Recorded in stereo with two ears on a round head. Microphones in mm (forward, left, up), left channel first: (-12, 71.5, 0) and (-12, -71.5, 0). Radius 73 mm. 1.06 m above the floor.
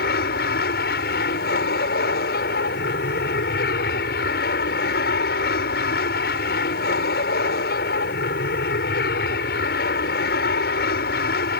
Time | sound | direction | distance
0.0 | an aircraft | 65° left (ahead or behind) | ?